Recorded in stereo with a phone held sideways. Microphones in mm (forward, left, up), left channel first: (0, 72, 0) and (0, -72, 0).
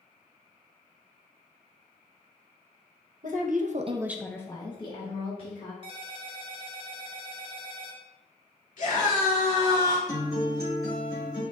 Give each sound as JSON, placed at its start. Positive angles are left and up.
{"t": 3.2, "sound": "a woman speaking", "side_deg": -65, "distance_m": 1.1}
{"t": 5.8, "sound": "a ringtone", "side_deg": -35, "distance_m": 1.0}
{"t": 8.8, "sound": "a scream", "side_deg": 55, "distance_m": 2.0}
{"t": 10.1, "sound": "a guitar", "side_deg": 25, "distance_m": 2.5}